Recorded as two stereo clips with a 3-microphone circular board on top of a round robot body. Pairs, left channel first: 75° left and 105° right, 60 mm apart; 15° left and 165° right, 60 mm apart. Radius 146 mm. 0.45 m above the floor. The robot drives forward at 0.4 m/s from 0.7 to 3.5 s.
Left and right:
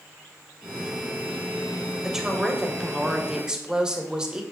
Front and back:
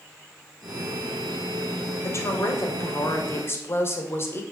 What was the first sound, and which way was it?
A woman speaking, 25° right.